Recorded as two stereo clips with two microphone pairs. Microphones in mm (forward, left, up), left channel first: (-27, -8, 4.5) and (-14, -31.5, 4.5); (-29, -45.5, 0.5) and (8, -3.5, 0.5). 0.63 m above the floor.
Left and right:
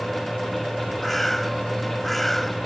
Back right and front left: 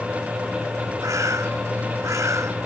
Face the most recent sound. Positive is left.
turn(degrees=40)